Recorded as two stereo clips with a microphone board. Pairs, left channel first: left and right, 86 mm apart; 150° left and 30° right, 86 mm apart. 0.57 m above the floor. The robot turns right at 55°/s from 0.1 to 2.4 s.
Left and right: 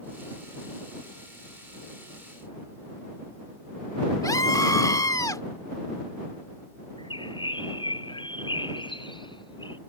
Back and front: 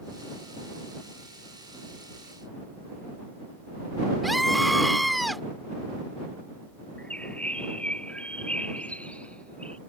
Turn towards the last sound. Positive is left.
turn(degrees=75)